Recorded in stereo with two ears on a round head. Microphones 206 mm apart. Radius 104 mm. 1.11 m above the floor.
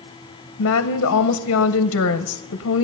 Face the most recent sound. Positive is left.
turn(degrees=55)  # may be behind; listen again after turning